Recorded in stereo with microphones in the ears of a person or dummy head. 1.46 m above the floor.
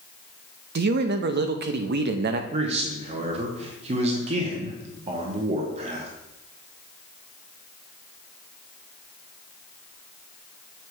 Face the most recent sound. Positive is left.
turn(degrees=-40)  # may be behind; listen again after turning